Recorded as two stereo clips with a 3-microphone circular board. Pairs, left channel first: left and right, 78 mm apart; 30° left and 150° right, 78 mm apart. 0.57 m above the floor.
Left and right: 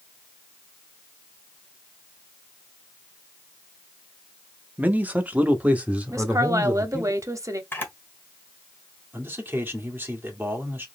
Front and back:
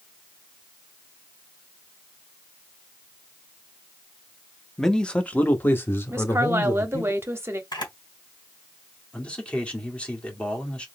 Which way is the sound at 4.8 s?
55° right.